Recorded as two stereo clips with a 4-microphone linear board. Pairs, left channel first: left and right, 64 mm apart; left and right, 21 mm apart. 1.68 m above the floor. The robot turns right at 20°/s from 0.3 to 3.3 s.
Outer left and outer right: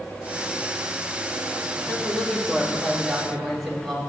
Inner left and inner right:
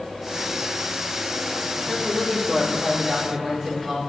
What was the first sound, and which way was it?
A man speaking, 150° left.